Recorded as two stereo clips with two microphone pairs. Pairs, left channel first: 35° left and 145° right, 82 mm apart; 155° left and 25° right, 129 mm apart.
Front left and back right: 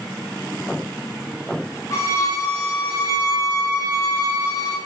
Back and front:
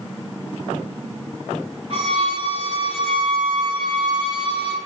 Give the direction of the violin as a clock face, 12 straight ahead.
12 o'clock.